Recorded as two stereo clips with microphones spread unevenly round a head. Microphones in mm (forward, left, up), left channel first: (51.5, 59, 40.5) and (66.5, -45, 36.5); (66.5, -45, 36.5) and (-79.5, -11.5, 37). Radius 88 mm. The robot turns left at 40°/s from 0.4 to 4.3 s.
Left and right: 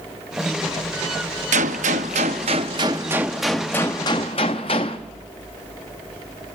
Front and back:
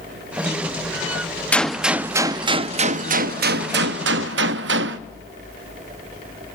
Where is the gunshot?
95° right, 0.6 m; by 5.0 s 155° left, 0.6 m.